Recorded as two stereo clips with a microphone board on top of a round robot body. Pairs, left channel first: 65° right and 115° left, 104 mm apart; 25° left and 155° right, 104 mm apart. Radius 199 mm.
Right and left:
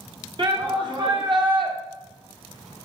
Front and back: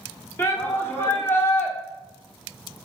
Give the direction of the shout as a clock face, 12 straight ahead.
9 o'clock.